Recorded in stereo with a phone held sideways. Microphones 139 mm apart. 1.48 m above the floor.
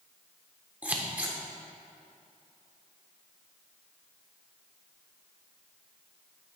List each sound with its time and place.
0.8 s scissors: 10° right (ahead or behind), 0.8 m